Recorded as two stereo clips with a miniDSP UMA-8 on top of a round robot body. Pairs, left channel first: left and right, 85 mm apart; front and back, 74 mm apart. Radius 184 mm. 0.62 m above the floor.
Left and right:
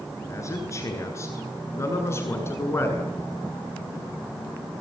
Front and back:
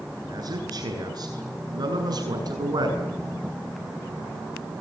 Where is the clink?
No clink in this recording.